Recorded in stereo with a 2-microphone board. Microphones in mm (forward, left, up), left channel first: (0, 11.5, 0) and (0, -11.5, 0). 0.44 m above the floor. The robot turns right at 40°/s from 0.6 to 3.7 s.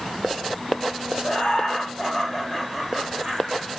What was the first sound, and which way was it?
Laughter, 120° left.